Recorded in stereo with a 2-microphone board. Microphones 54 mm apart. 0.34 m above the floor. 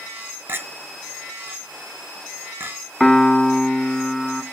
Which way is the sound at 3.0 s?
5° left (ahead or behind).